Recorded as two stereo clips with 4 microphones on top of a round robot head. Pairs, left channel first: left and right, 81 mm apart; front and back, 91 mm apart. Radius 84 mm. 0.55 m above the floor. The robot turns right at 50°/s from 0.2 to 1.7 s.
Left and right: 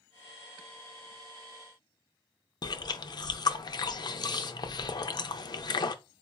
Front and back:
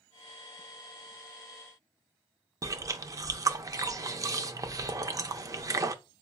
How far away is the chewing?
About 0.6 m.